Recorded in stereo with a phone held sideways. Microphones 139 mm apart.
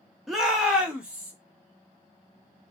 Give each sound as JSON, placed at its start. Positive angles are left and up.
{"t": 0.3, "sound": "a shout", "side_deg": 0, "distance_m": 0.7}